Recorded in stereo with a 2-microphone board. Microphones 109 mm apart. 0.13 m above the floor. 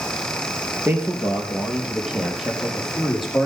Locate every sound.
0.8 s a man speaking: 15° right (ahead or behind), 3 m; by 3.5 s centre (ahead or behind), 5 m